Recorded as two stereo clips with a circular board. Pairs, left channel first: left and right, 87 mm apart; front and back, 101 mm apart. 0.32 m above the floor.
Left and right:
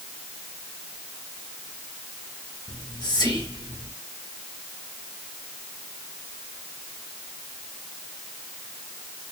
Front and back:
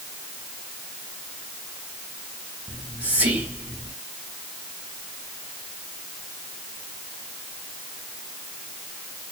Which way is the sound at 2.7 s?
110° left.